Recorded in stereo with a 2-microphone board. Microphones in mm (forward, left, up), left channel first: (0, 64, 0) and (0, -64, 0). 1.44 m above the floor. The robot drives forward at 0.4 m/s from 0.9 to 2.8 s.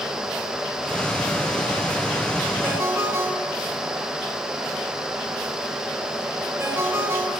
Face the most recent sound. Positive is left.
turn(degrees=-20)  # may be behind; listen again after turning